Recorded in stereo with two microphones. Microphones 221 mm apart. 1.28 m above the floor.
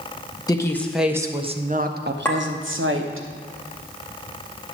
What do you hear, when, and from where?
0.5 s a woman speaking: 20° left (ahead or behind), 0.8 m; by 3.2 s 80° right, 1.3 m
2.2 s a clink: 10° left (ahead or behind), 1.7 m